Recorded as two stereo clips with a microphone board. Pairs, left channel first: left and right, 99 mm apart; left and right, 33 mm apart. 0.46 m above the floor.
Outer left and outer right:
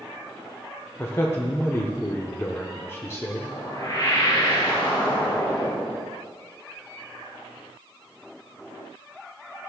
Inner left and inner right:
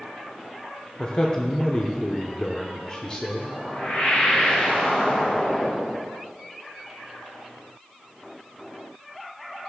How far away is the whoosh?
About 2 m.